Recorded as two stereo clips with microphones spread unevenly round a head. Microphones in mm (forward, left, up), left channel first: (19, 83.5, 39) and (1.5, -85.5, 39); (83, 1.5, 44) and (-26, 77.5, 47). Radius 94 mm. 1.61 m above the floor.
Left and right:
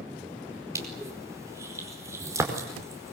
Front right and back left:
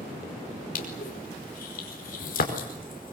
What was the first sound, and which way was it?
Crushing, 20° right.